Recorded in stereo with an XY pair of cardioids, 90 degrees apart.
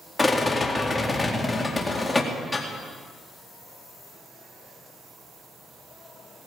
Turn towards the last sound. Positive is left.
turn(degrees=15)